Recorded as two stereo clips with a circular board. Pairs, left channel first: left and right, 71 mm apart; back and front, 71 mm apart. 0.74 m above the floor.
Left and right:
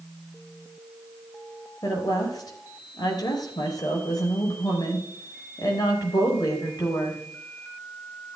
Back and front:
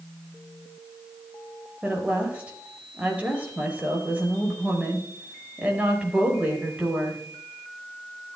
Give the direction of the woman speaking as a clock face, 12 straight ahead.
10 o'clock.